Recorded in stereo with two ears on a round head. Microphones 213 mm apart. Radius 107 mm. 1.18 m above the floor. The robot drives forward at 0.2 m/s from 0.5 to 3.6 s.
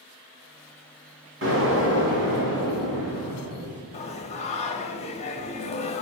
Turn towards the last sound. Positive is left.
turn(degrees=25)  # may be behind; listen again after turning